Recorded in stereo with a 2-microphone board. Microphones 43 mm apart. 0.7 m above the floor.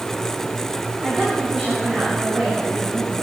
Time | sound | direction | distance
1.0 | a woman speaking | 20° right (ahead or behind) | 9 m